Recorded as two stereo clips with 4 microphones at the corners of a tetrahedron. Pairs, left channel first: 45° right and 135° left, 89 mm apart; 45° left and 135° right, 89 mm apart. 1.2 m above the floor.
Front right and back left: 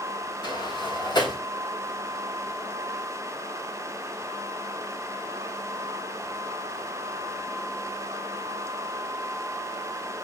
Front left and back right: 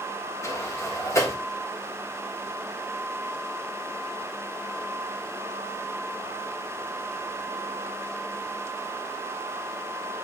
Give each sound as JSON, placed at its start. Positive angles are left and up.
{"t": 0.4, "sound": "a sliding door", "azimuth_deg": -10, "distance_m": 3.0}